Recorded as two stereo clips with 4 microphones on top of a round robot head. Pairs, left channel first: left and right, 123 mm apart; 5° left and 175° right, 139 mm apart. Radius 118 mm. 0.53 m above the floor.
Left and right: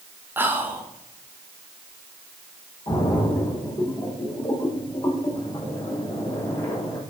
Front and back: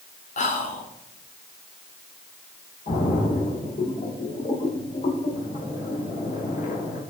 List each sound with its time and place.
0.4 s whispering: 15° right, 1.7 m
2.9 s a splash: 35° left, 2.5 m